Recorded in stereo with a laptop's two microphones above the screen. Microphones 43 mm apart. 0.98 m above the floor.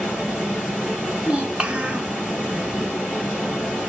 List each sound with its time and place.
0.0 s running water: 10° left (ahead or behind), 3 m
1.2 s a child speaking: 25° right (ahead or behind), 1.0 m